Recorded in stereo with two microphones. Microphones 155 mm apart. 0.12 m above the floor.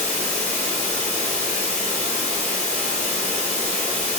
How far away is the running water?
About 1.5 m.